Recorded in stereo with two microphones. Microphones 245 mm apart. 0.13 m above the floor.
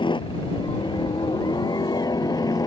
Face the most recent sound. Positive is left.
turn(degrees=15)  # may be behind; listen again after turning